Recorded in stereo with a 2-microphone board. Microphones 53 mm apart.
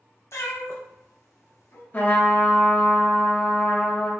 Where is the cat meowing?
70° left (ahead or behind), 0.6 m.